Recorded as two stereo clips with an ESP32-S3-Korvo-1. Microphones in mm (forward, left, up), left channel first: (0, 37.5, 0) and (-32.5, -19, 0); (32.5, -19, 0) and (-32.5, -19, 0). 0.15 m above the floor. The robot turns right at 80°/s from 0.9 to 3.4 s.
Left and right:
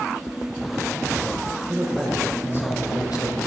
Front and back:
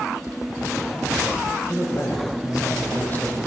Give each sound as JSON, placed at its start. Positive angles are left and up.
{"t": 1.7, "sound": "a man speaking", "azimuth_deg": -60, "distance_m": 4.5}